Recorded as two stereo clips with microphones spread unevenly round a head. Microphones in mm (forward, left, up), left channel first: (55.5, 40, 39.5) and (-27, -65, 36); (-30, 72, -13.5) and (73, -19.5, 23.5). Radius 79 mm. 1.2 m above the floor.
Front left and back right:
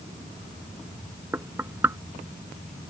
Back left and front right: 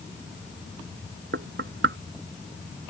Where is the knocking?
55° right.